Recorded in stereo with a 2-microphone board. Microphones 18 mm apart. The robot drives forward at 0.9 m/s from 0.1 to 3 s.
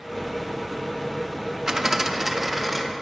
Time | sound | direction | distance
1.7 | a dropped coin | 30° right (ahead or behind) | 0.5 m